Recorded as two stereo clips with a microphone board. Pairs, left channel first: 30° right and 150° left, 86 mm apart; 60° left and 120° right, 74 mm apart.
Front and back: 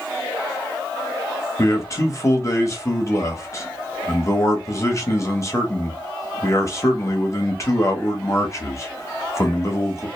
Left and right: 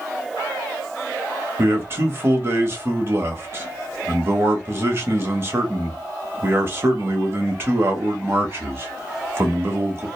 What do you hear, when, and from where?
1.6 s a man speaking: 75° right, 0.9 m